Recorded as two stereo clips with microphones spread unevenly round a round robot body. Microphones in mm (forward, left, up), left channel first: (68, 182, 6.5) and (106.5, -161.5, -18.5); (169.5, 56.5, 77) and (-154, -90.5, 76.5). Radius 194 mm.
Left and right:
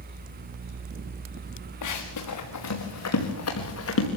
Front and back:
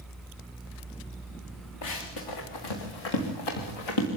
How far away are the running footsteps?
About 4 m.